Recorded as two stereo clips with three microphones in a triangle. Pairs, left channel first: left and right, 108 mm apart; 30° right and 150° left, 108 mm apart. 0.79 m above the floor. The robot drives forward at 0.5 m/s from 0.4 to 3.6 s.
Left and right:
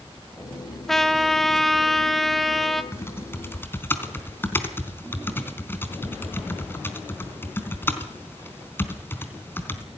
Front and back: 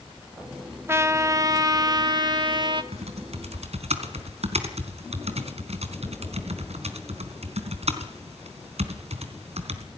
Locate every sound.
0.9 s a trumpet: 170° left, 1.1 m; by 2.8 s 175° left, 1.7 m
2.9 s typing on a keyboard: 155° left, 3 m; by 9.8 s 160° left, 3.5 m